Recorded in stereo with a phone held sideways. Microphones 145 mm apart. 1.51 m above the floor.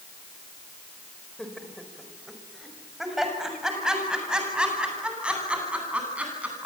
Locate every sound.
1.4 s laughter: 5° left (ahead or behind), 5 m; by 6.7 s 10° right (ahead or behind), 11.5 m